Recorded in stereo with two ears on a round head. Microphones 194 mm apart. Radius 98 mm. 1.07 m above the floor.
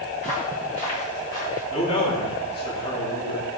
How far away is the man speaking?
About 2.5 m.